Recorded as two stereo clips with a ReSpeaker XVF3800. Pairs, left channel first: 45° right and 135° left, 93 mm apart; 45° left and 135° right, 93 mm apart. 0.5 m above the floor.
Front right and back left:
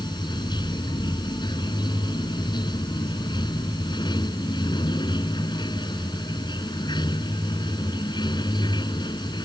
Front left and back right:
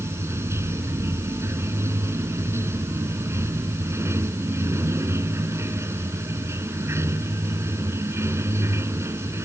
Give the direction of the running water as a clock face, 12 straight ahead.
3 o'clock.